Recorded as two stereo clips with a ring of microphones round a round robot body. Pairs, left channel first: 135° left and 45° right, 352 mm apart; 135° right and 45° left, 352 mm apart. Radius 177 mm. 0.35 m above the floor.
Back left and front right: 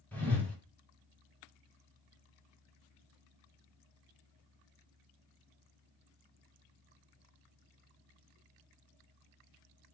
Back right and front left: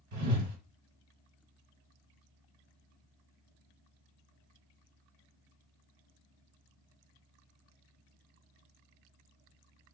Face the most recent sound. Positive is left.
turn(degrees=50)